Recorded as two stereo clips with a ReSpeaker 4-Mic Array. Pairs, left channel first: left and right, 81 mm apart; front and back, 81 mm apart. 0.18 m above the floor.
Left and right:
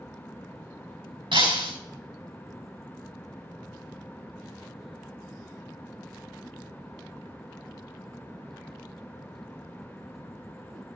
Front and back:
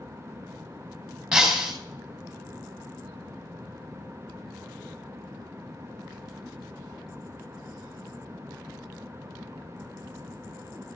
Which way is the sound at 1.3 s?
90° right.